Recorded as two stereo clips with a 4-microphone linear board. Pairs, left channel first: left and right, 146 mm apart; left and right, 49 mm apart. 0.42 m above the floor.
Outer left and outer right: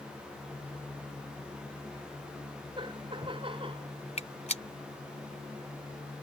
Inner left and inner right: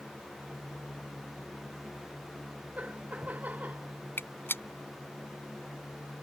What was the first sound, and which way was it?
Laughter, 35° right (ahead or behind).